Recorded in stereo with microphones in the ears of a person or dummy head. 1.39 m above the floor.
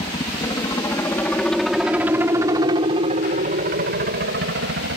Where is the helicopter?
25° left (ahead or behind); by 5.0 s 65° right (ahead or behind).